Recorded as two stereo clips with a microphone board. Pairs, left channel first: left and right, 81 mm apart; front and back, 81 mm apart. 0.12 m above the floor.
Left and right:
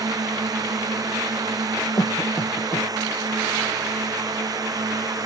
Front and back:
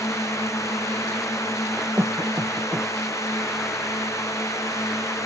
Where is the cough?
120° left.